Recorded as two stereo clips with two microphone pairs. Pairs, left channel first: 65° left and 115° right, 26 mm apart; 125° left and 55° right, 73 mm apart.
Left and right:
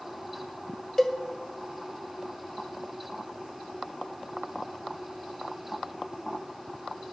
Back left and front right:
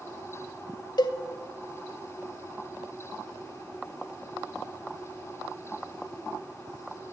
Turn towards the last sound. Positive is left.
turn(degrees=145)